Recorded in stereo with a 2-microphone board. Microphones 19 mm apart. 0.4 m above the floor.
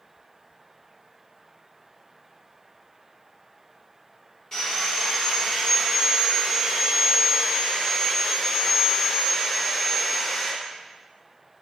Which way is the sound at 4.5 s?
30° left (ahead or behind).